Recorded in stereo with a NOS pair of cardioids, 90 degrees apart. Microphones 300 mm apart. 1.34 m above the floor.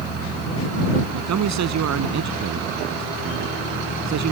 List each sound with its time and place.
1.1 s a man speaking: 65° right